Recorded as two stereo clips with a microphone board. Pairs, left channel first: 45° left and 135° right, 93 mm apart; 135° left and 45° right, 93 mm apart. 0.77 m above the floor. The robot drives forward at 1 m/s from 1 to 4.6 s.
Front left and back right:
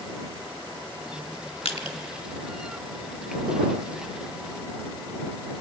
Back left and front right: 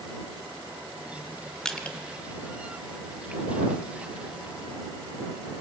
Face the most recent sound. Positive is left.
turn(degrees=150)